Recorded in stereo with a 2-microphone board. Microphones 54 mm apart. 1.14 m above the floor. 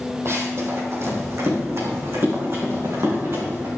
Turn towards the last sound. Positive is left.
turn(degrees=-60)  # may be behind; listen again after turning